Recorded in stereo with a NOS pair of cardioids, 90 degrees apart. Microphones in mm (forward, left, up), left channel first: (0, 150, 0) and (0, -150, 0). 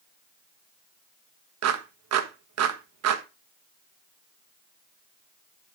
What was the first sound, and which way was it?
A clap, 60° right.